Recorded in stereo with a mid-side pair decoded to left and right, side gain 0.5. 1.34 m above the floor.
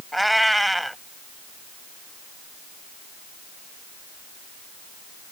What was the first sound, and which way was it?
A cat meowing, 5° right.